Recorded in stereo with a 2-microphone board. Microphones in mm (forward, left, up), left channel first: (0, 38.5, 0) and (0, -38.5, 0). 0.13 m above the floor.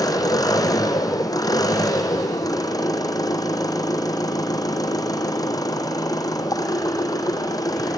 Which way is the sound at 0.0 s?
55° left (ahead or behind).